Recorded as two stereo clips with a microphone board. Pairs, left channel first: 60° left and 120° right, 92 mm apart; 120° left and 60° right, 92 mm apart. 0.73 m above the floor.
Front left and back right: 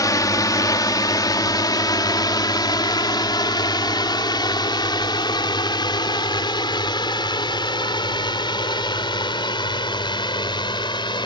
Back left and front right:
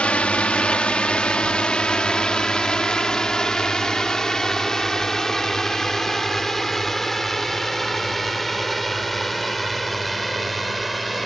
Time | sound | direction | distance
0.0 | a drone | 50° left | ?